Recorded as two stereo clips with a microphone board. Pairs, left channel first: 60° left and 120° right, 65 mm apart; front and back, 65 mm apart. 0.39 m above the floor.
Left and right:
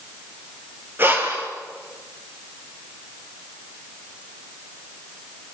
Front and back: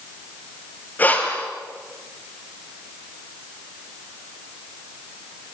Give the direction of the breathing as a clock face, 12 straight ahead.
2 o'clock.